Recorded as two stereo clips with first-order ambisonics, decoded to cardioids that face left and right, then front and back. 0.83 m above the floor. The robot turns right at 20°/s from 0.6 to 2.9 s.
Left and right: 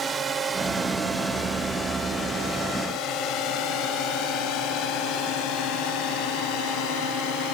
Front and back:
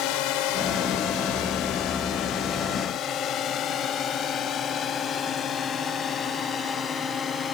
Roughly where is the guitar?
No guitar in this recording.